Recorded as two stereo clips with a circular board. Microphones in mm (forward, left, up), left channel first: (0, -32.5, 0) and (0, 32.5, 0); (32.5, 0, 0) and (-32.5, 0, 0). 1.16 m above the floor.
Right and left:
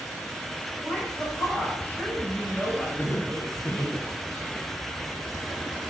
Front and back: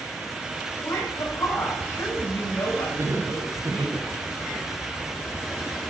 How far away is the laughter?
About 2 m.